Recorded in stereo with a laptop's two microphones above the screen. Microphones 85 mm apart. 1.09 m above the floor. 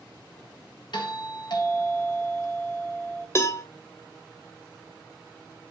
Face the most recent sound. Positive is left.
turn(degrees=35)  # may be behind; listen again after turning